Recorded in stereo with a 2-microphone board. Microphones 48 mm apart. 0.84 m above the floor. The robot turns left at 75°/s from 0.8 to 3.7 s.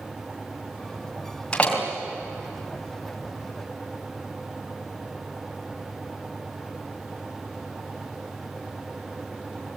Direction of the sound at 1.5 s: 20° left (ahead or behind).